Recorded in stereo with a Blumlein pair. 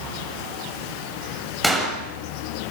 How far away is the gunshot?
About 6.5 m.